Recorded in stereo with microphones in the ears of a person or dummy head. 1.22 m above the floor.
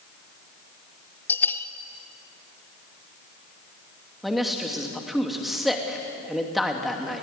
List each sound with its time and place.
1.3 s a bell: 10° left (ahead or behind), 1.2 m
4.2 s a man speaking: 5° left (ahead or behind), 2.5 m